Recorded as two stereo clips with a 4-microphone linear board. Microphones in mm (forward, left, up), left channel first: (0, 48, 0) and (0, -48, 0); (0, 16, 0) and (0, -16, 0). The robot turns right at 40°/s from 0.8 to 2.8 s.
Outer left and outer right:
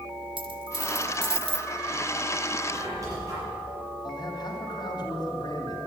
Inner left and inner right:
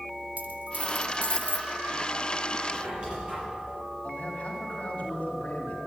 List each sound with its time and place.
0.4 s a dropped coin: 60° right (ahead or behind), 0.8 m; by 1.7 s 80° right, 0.8 m
2.7 s a squeak: 30° right (ahead or behind), 6.5 m; by 3.4 s 35° right (ahead or behind), 6.5 m
4.0 s a man speaking: 45° left (ahead or behind), 3 m